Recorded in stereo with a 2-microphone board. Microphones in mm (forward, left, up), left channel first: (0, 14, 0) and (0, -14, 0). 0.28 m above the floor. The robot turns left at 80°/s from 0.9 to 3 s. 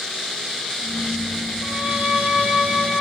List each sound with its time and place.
1.6 s a violin: 40° right, 4 m; by 3.0 s 150° right, 4 m